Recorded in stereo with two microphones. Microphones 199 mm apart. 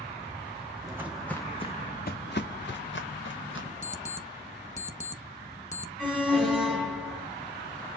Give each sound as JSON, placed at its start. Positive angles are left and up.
{"t": 0.8, "sound": "footsteps", "side_deg": -20, "distance_m": 0.8}
{"t": 3.8, "sound": "an alarm clock", "side_deg": 35, "distance_m": 0.7}
{"t": 6.0, "sound": "an alarm", "side_deg": -5, "distance_m": 1.7}